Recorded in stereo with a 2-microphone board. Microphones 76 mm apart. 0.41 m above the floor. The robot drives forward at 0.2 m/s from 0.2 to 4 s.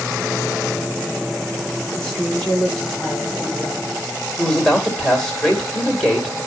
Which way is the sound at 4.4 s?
5° left (ahead or behind).